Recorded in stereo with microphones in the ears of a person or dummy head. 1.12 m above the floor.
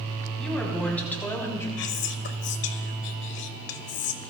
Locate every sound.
0.4 s a woman speaking: 5° left (ahead or behind), 3 m; by 1.7 s 15° left (ahead or behind), 3 m
1.8 s whispering: 60° left (ahead or behind), 1.6 m